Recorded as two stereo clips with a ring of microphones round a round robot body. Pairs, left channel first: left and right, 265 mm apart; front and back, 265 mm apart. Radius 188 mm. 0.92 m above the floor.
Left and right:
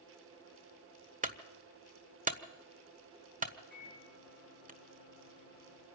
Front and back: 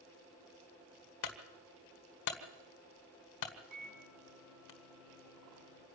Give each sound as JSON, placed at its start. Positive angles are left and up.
{"t": 1.2, "sound": "a clunk", "azimuth_deg": -30, "distance_m": 1.4}
{"t": 3.7, "sound": "a microwave", "azimuth_deg": -160, "distance_m": 6.5}